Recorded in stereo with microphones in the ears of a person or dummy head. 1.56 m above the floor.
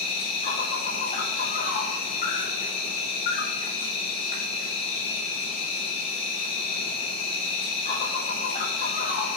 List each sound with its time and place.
0.0 s an insect: 35° left (ahead or behind), 0.7 m